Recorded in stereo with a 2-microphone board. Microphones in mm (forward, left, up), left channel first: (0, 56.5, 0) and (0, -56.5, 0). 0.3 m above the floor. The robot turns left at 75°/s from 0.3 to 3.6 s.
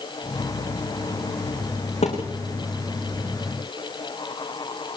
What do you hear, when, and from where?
2.0 s a thud: 75° left (ahead or behind), 8 m; by 2.2 s 90° left, 8 m